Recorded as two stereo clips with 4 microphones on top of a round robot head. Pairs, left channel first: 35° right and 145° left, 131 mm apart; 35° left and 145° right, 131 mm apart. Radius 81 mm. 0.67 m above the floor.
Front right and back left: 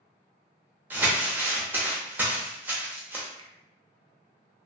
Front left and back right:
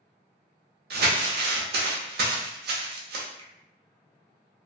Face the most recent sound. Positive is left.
turn(degrees=-175)